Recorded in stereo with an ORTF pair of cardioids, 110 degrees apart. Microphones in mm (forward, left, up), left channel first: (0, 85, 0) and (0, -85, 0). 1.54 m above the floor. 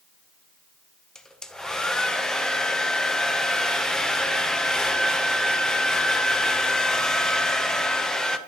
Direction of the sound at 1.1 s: 5° left.